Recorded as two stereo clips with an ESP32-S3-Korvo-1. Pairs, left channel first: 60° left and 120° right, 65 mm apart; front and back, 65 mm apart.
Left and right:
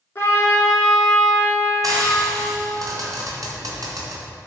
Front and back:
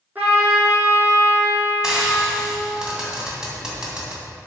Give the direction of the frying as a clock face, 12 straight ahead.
3 o'clock.